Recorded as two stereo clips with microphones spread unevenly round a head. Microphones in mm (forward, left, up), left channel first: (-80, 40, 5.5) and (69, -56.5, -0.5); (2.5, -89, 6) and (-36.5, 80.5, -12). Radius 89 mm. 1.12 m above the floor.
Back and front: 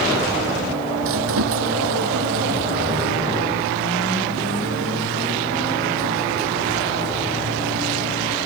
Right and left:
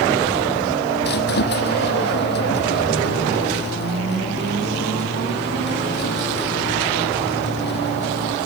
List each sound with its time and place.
1.0 s a squeak: 40° right